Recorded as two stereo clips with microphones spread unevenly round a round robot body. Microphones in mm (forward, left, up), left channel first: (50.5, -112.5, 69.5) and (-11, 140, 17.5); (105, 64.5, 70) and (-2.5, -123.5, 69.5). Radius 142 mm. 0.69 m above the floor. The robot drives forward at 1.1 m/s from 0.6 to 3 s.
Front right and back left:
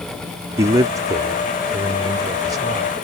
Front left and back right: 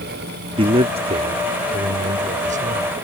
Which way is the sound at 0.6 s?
175° left.